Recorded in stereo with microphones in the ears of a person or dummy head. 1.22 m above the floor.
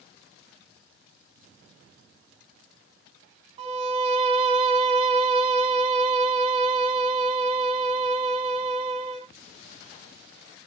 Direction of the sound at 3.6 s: 30° right (ahead or behind).